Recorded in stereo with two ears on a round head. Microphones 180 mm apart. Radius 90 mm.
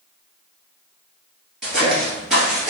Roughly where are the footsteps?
Centre.